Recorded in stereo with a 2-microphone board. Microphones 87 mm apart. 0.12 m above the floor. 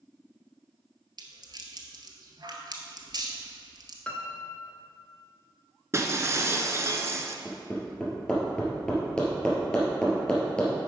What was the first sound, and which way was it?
A rattle, 55° right (ahead or behind).